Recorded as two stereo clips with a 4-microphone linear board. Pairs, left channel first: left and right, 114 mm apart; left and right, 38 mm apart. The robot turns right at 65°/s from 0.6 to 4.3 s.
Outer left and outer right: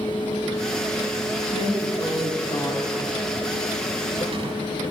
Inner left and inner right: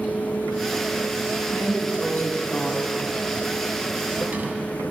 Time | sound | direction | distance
1.5 | a drawer | 65° left | 1.0 m